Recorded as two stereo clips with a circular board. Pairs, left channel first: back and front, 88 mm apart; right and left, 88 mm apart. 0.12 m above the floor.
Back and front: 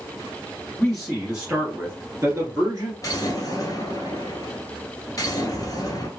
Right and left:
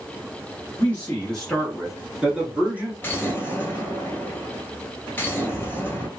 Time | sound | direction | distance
0.8 | a man speaking | 100° right | 1.2 m
3.0 | an explosion | 150° right | 1.1 m